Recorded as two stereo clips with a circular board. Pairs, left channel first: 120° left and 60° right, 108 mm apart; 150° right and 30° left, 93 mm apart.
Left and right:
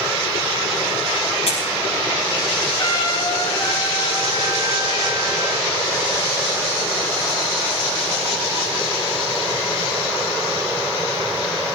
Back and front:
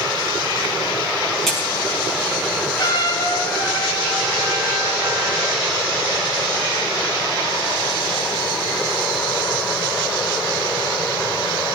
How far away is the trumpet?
About 7 m.